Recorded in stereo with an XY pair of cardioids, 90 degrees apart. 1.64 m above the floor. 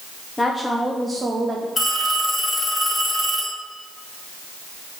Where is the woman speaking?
20° left, 0.8 m; by 1.7 s 50° right, 1.0 m.